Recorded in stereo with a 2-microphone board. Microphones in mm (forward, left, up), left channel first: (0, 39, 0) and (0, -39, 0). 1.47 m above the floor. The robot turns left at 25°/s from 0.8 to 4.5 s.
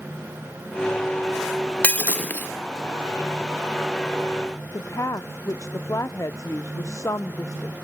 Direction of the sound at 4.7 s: 45° left (ahead or behind).